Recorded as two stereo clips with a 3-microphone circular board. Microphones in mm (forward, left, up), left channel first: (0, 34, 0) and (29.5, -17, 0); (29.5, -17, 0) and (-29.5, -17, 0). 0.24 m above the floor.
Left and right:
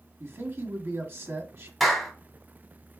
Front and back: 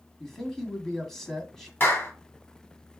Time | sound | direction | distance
0.2 | a man speaking | 80° right | 1.4 m
1.8 | a clap | 35° left | 1.6 m